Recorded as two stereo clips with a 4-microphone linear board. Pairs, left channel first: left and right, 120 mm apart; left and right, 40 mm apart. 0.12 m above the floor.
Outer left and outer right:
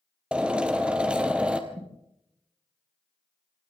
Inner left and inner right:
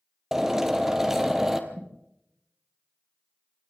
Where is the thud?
50° right (ahead or behind), 6.5 m.